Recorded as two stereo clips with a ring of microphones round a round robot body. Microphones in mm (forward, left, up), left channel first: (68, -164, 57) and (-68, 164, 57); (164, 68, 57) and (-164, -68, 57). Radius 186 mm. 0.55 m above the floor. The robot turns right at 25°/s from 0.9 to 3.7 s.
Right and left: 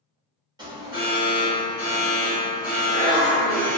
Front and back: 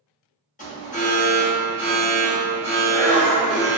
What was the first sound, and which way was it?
An alarm, 50° left.